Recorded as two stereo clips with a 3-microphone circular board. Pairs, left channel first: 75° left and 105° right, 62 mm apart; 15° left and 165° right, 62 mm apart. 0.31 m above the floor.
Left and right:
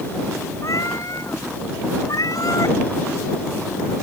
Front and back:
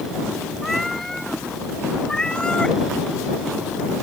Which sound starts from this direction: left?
A cat meowing, at 0.6 s.